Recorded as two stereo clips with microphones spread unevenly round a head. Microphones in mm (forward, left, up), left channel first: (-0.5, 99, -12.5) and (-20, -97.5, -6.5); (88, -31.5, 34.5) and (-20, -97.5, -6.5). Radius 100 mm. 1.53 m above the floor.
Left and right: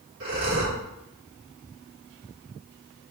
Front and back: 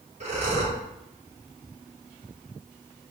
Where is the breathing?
120° right, 4 m.